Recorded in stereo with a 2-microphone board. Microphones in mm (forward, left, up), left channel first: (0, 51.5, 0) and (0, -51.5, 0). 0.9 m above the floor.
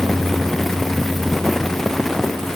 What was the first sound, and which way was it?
Only background noise.